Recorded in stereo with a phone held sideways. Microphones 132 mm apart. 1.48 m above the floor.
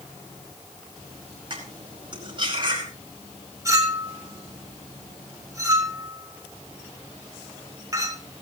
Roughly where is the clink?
Right.